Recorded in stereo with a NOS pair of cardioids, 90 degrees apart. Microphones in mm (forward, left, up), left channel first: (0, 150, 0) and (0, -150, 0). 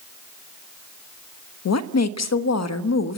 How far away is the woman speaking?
About 1.3 m.